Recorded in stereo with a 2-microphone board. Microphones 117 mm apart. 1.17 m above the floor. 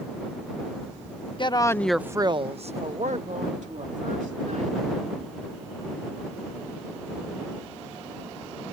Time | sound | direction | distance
1.4 | a woman speaking | 40° left (ahead or behind) | ?